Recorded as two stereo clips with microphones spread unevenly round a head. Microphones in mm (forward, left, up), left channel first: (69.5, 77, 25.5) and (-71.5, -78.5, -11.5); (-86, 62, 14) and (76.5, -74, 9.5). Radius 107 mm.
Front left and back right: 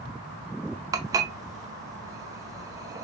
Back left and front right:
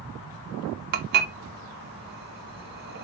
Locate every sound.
0.9 s dishes clattering: 50° right, 0.6 m